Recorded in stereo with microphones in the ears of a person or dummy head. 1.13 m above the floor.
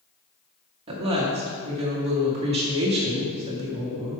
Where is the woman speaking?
30° right (ahead or behind), 1.8 m.